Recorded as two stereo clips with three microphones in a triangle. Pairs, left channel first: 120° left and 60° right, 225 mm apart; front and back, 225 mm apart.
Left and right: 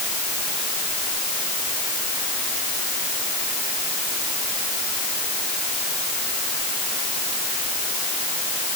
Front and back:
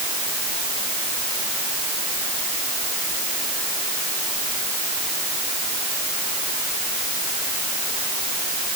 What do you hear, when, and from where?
Only background noise.